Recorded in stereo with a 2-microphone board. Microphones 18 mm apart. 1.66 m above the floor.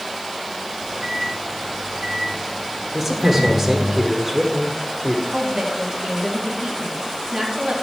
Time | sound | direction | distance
0.7 | a microwave | 80° right | 4 m
2.9 | a man speaking | 40° right (ahead or behind) | 1.1 m
5.3 | a woman speaking | 70° right (ahead or behind) | 3.5 m